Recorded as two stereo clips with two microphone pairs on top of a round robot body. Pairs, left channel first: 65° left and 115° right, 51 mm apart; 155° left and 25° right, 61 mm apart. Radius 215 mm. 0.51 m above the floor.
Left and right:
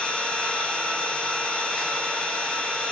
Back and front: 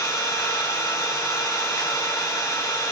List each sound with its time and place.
0.0 s an engine running: 135° left, 1.1 m